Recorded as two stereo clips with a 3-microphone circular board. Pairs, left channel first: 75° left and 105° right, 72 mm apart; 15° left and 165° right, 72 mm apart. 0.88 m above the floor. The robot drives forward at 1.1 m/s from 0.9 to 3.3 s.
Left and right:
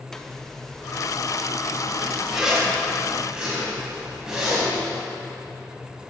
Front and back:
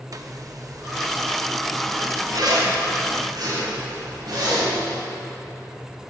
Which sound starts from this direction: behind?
A zipper, at 0.1 s.